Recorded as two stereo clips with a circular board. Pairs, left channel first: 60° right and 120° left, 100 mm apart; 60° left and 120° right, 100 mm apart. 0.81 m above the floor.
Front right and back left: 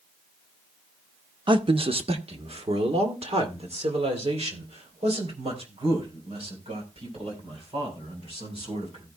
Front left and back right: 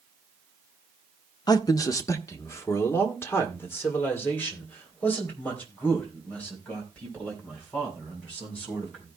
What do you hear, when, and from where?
1.5 s a man speaking: 95° left, 0.8 m; by 9.1 s 135° left, 6.5 m